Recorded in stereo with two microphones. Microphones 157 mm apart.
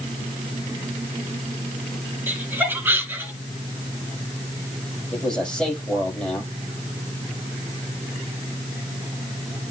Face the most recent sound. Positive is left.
turn(degrees=5)  # may be behind; listen again after turning